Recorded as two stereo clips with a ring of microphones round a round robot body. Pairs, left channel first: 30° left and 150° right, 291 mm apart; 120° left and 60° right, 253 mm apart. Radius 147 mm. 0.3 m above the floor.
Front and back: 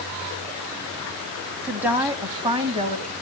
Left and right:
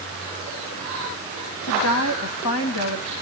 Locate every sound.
1.6 s a woman speaking: 125° left, 1.8 m; by 3.1 s 150° left, 2.0 m